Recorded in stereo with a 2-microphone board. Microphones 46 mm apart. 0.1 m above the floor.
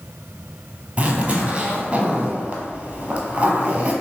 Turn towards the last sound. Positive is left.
turn(degrees=-25)  # may be behind; listen again after turning